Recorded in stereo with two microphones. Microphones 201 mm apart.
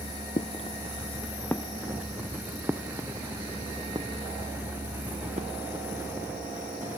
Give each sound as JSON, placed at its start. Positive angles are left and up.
{"t": 0.4, "sound": "footsteps", "side_deg": 35}